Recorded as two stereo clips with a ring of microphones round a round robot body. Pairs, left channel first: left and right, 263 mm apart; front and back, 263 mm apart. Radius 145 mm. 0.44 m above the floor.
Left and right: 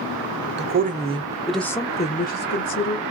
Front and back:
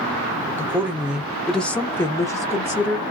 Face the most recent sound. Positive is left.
turn(degrees=75)